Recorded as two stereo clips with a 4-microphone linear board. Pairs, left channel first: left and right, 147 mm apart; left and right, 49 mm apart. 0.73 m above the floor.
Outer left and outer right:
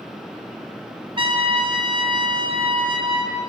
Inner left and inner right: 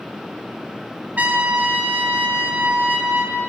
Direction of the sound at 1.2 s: 35° right (ahead or behind).